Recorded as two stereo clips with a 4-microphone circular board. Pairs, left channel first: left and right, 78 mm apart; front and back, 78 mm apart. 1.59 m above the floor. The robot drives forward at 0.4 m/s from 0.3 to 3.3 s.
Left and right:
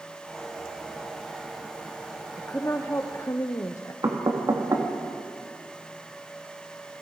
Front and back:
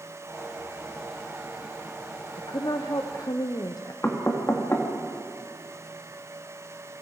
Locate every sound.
2.4 s a woman speaking: 30° left, 1.1 m; by 3.9 s 40° left, 0.8 m
4.0 s knocking: 55° right, 2.5 m